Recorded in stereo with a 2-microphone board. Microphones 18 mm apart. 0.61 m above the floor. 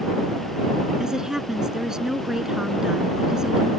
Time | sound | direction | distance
1.0 | a woman speaking | 35° right (ahead or behind) | ?